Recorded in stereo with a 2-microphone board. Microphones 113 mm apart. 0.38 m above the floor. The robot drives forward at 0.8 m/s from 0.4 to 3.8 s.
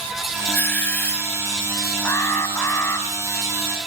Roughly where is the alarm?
Left.